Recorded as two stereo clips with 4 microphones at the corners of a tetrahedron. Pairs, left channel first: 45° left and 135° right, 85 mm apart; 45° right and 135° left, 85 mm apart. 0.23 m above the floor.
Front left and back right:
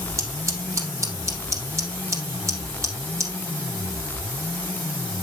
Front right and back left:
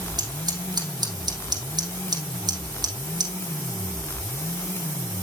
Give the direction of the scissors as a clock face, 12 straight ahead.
6 o'clock.